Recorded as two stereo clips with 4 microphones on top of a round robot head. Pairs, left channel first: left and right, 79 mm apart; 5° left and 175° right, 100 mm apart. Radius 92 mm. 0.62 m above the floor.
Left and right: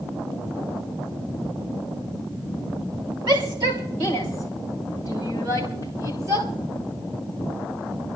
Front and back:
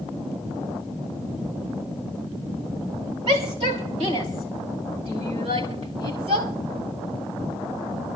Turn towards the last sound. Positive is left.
turn(degrees=-145)